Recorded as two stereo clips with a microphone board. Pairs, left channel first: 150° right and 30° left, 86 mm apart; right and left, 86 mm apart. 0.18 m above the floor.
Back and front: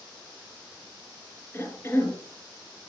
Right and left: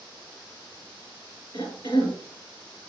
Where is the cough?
95° right, 2.5 m.